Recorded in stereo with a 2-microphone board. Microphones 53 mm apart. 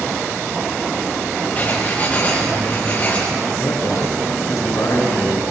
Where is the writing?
30° left (ahead or behind), 8 m.